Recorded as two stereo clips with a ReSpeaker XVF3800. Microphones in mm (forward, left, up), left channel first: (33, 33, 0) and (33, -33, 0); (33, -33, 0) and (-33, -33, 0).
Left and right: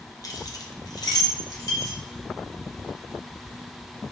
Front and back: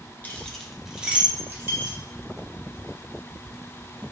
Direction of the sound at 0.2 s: 60° left.